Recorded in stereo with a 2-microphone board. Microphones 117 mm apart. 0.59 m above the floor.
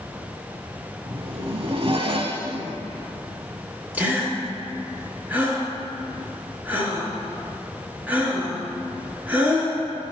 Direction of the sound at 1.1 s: 50° right (ahead or behind).